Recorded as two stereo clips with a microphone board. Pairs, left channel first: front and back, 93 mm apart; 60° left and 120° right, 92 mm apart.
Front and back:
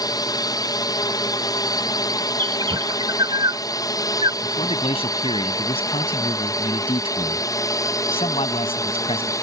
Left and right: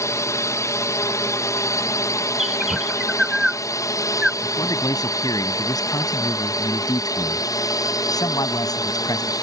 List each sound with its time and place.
0.0 s a drone: 20° left; by 9.4 s 35° left
2.4 s a bird: 155° left
4.4 s a man speaking: 15° left